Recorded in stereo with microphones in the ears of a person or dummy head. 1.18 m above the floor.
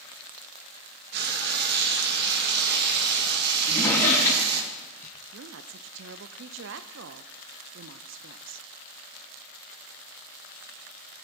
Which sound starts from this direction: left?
A drawer, at 3.6 s.